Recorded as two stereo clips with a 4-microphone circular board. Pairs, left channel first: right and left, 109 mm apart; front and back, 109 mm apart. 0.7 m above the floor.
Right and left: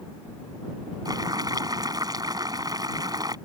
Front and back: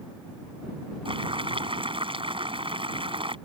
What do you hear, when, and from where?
1.1 s boiling: 145° left